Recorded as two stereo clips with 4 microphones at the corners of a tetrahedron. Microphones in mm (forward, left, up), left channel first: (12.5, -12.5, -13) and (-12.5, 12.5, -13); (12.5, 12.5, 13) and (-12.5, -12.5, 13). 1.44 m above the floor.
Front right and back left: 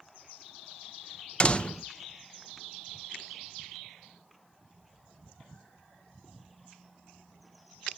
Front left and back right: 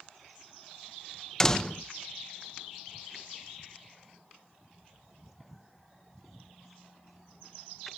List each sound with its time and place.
1.4 s a door slam: 15° right, 0.6 m